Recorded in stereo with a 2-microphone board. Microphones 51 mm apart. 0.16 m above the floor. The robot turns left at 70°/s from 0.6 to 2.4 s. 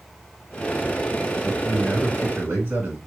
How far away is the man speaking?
About 2.5 m.